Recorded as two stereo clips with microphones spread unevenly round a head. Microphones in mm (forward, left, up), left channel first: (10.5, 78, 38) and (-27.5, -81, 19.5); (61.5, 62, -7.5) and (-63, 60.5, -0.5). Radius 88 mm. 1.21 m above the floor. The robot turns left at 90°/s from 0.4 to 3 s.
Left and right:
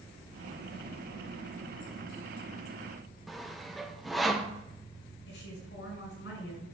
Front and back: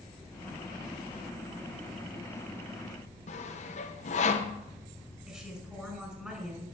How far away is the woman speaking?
About 6 m.